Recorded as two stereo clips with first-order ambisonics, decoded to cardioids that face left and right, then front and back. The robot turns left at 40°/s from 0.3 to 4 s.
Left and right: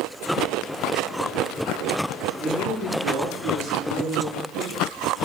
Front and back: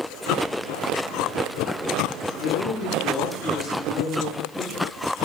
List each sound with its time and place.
2.4 s a man speaking: 10° right, 7.5 m; by 4.9 s 75° right, 7.5 m